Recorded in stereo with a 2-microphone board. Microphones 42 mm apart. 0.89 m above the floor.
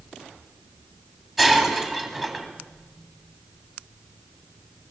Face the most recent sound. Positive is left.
turn(degrees=-5)  # may be behind; listen again after turning